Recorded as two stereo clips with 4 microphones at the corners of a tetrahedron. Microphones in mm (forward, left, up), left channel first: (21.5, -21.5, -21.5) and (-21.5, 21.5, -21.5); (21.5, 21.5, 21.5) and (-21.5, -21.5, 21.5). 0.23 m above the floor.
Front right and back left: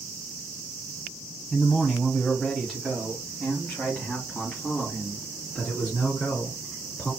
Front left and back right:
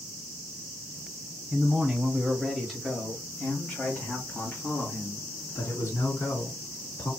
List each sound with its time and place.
1.5 s a man speaking: 135° right, 1.3 m; by 7.1 s 30° left, 3 m